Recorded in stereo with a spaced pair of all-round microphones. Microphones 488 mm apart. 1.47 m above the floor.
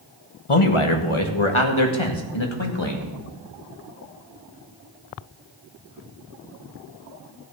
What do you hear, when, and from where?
0.5 s a man speaking: 85° left, 1.5 m; by 3.1 s 60° left (ahead or behind), 2.5 m